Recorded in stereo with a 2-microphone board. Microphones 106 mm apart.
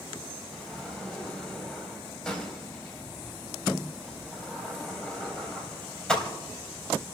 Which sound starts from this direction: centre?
A sliding door, at 0.5 s.